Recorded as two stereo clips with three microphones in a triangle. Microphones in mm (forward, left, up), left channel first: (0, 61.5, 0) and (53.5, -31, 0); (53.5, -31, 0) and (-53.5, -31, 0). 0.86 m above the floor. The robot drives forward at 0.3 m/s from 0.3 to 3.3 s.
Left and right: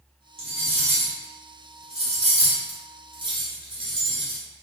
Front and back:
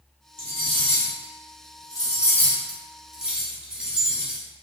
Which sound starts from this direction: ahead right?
Cutlery clinking, at 0.4 s.